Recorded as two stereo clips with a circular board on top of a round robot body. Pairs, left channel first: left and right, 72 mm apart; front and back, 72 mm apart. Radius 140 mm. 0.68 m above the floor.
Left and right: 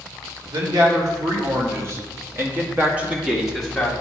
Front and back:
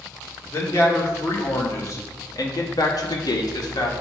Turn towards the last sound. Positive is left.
turn(degrees=5)